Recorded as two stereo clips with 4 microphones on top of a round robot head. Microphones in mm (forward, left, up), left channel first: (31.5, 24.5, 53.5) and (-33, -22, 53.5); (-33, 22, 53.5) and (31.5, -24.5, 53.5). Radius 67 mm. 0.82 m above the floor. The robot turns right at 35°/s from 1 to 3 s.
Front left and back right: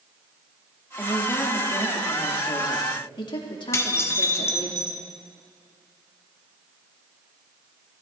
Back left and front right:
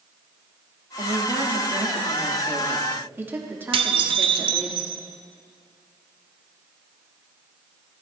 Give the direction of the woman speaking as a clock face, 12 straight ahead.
1 o'clock.